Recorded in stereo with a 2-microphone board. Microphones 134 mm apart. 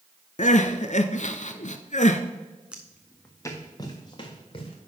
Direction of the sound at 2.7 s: 5° right (ahead or behind).